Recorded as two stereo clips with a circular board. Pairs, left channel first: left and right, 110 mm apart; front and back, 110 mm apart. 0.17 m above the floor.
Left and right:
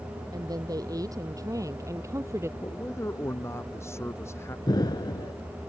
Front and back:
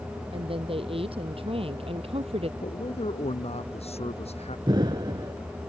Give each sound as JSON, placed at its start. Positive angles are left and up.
{"t": 0.3, "sound": "a woman speaking", "azimuth_deg": -145}
{"t": 2.6, "sound": "a man speaking", "azimuth_deg": 25}
{"t": 4.7, "sound": "an explosion", "azimuth_deg": 135}